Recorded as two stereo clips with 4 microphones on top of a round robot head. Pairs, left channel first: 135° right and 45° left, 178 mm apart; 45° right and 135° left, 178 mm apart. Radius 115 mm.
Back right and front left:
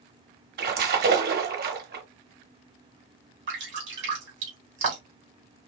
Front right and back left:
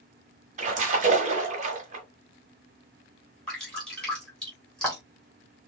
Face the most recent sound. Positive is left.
turn(degrees=40)